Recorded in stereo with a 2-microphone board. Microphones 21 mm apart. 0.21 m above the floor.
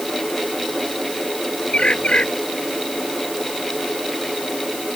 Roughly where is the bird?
Left.